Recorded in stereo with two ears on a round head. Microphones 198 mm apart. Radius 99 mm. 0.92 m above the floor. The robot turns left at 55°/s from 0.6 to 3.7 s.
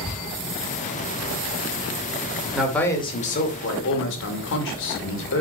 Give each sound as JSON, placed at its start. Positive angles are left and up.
{"t": 2.5, "sound": "a man speaking", "azimuth_deg": -175, "distance_m": 2.5}